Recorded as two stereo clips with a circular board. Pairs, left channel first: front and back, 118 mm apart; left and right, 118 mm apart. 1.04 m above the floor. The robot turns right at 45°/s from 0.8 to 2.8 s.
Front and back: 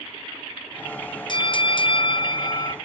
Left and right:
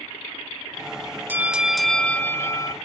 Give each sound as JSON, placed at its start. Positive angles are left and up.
{"t": 1.3, "sound": "a bell", "azimuth_deg": -25, "distance_m": 0.5}